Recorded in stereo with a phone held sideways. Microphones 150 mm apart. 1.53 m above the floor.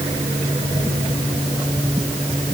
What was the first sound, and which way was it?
Only background noise.